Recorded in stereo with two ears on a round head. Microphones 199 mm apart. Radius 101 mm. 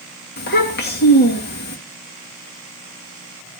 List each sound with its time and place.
0.4 s a child speaking: 50° left (ahead or behind), 2 m